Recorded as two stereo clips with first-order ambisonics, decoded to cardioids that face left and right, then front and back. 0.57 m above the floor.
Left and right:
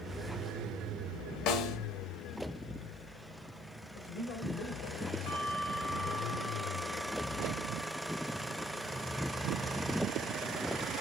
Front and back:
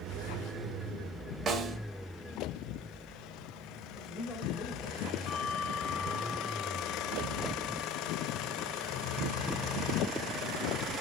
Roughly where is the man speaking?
Ahead left.